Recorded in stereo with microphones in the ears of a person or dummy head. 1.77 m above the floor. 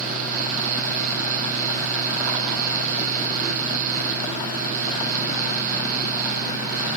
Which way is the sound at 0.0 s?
40° right (ahead or behind).